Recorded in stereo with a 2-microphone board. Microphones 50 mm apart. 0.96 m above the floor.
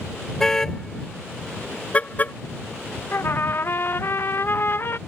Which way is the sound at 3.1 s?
45° left (ahead or behind).